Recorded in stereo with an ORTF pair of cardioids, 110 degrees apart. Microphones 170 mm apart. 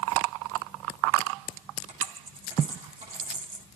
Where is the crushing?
I don't hear crushing.